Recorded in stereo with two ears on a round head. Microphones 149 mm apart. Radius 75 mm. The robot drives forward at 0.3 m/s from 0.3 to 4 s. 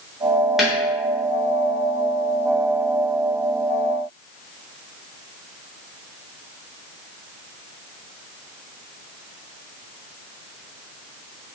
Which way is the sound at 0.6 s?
Centre (ahead or behind).